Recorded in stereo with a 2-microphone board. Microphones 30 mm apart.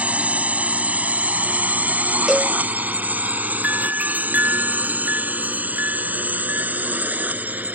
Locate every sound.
0.0 s a drone: 50° right (ahead or behind); by 7.8 s 70° right (ahead or behind)
2.3 s a cowbell: 15° right (ahead or behind)
3.6 s a doorbell: 75° right (ahead or behind)